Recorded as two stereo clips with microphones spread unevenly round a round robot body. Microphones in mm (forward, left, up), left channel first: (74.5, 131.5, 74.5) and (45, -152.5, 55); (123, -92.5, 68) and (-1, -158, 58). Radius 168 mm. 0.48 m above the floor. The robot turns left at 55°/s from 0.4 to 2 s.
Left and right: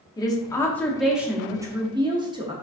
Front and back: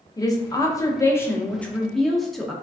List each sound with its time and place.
0.2 s a woman speaking: 20° left, 0.7 m; by 2.5 s 70° right, 0.7 m